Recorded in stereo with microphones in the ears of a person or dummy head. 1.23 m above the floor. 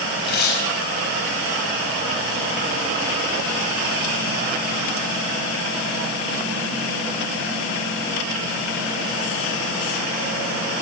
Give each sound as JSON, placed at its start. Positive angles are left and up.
{"t": 0.2, "sound": "tearing paper", "side_deg": 50, "distance_m": 4.5}